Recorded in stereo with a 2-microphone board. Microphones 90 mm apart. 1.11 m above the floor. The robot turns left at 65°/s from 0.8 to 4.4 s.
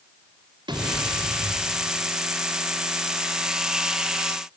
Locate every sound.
0.7 s an explosion: 60° right, 3.5 m; by 1.9 s 135° right, 3.5 m